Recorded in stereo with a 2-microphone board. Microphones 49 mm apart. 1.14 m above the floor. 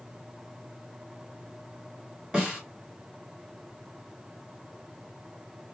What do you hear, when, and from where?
2.3 s a snare drum: 10° right (ahead or behind), 2.5 m